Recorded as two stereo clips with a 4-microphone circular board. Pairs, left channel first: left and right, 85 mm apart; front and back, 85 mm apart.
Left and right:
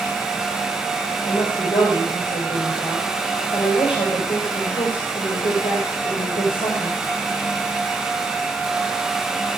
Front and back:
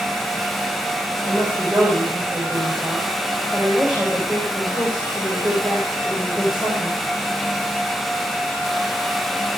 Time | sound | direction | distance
1.2 | a woman speaking | 100° left | 6 m